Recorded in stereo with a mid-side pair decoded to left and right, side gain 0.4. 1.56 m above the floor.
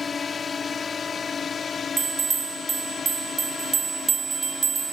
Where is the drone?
45° left; by 4.9 s 55° left.